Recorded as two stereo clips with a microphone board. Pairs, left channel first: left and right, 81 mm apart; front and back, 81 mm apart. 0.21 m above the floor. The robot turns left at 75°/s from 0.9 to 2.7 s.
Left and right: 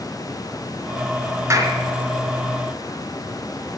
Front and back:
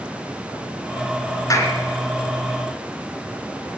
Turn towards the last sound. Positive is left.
turn(degrees=-130)